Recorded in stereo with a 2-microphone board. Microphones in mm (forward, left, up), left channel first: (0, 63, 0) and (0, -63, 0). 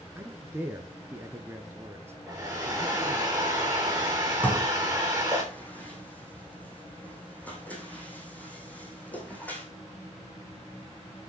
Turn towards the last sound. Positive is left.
turn(degrees=10)  # may be behind; listen again after turning